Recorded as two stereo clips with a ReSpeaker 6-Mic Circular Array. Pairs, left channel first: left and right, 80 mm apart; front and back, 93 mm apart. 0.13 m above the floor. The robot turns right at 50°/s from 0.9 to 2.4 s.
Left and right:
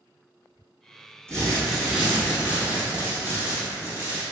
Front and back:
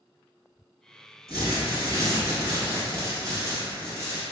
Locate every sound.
1.3 s crumpling: 160° left, 1.3 m; by 4.2 s 145° right, 1.3 m